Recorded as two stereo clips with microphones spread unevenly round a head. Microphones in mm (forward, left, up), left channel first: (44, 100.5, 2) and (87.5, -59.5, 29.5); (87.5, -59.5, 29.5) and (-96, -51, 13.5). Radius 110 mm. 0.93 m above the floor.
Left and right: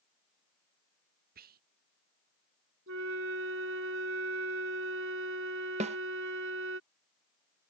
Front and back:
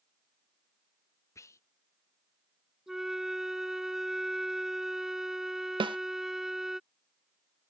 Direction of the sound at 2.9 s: 95° right.